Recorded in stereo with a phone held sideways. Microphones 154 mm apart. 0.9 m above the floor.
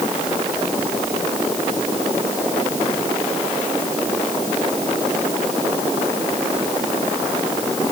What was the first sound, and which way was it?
Only background noise.